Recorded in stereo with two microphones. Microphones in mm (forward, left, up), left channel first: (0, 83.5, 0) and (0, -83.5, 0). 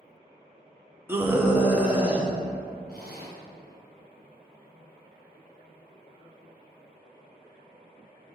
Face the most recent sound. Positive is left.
turn(degrees=55)  # may be behind; listen again after turning